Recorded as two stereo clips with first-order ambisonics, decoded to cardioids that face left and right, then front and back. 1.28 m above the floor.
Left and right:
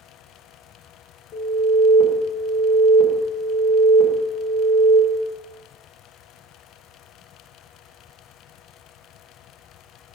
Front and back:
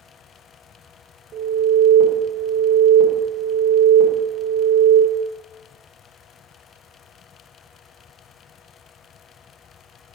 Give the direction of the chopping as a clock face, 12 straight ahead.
I don't hear chopping.